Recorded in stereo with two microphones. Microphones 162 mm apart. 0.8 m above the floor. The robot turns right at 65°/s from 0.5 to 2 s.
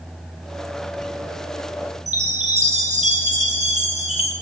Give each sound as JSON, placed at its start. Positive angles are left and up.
{"t": 2.1, "sound": "a chime", "side_deg": -45, "distance_m": 1.4}